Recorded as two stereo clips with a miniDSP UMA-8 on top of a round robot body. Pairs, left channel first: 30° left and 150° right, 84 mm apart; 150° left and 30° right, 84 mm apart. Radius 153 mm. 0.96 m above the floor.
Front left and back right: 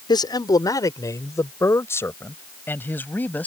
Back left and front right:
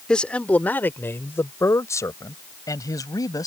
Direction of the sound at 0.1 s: 70° left.